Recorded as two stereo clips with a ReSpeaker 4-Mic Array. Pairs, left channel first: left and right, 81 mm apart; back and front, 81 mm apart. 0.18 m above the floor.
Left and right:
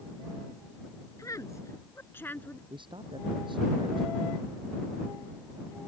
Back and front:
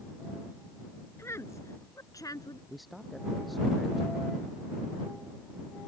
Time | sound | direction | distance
1.2 | a woman speaking | 130° left | ?
2.7 | a man speaking | 90° right | ?